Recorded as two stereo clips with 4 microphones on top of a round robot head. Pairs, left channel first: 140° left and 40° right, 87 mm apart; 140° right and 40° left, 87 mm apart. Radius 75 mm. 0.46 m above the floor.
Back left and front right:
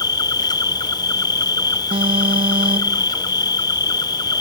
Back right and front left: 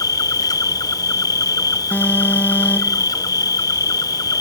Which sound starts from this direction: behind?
An insect, at 0.0 s.